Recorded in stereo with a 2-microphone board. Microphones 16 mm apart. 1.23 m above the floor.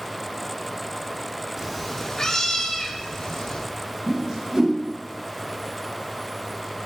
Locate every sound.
1.6 s a cat meowing: 20° right (ahead or behind), 0.8 m; by 3.6 s 65° left (ahead or behind), 3 m
4.1 s a whoosh: 45° right (ahead or behind), 2.5 m